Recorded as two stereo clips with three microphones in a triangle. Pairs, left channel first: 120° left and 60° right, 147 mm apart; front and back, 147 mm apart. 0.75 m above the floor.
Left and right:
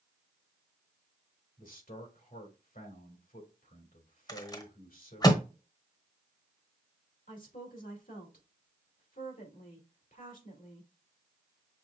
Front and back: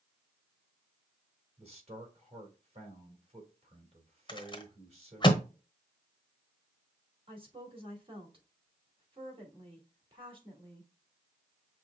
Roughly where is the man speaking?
Behind left.